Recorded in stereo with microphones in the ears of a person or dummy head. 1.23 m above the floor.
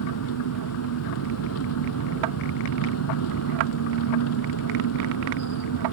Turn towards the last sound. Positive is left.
turn(degrees=90)